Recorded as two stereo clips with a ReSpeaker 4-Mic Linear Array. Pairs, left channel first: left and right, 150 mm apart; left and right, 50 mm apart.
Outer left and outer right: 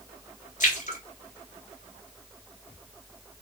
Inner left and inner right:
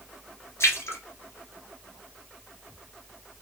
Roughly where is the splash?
Left.